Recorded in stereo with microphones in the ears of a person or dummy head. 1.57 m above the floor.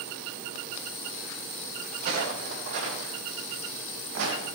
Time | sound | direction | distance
1.9 | footsteps | 45° right (ahead or behind) | 4 m